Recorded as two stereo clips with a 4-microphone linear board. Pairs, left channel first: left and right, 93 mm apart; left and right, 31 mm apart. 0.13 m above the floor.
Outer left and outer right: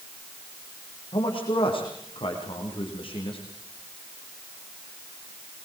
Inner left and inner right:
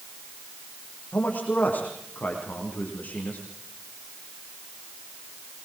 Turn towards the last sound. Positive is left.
turn(degrees=70)  # may be behind; listen again after turning